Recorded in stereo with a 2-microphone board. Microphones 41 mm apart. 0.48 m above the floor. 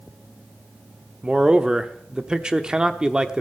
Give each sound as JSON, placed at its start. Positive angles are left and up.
{"t": 1.2, "sound": "a man speaking", "side_deg": -20, "distance_m": 0.9}